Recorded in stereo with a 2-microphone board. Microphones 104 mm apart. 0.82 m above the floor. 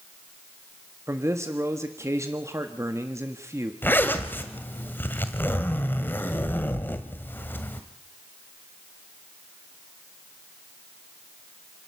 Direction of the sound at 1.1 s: 25° right (ahead or behind).